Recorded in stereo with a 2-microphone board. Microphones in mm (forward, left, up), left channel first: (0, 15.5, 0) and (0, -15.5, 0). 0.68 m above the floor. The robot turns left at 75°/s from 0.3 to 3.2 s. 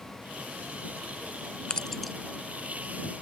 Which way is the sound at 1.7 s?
30° left (ahead or behind).